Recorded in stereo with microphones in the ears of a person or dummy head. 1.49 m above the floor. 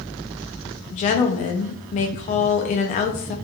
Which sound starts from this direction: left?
A woman speaking, at 0.9 s.